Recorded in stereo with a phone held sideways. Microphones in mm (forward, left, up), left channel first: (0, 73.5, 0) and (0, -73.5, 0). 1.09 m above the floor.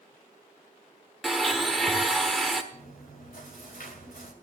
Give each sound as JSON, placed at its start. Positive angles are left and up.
{"t": 1.2, "sound": "a blender", "side_deg": 0, "distance_m": 1.4}
{"t": 2.7, "sound": "chewing", "side_deg": 75, "distance_m": 2.5}